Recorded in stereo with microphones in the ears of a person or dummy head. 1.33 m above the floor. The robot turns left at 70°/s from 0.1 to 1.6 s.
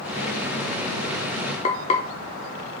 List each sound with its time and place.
1.6 s frying: 25° left (ahead or behind), 0.5 m